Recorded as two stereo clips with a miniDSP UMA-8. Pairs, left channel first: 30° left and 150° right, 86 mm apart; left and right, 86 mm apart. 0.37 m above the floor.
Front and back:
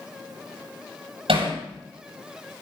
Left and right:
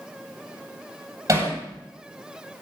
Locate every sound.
1.3 s hammering: 150° right, 9.5 m